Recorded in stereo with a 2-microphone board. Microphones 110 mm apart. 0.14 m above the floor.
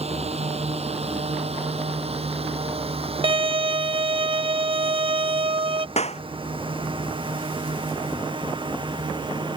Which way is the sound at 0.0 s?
70° right (ahead or behind).